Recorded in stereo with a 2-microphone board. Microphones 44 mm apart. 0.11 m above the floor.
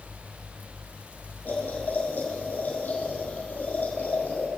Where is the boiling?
45° left (ahead or behind), 5.5 m.